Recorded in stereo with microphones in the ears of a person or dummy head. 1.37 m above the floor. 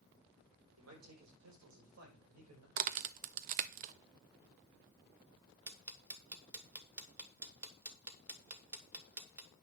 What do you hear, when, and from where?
0.8 s a man speaking: 85° right, 4 m
2.8 s a crack: 45° right (ahead or behind), 0.6 m
5.7 s ticking: 10° right (ahead or behind), 1.3 m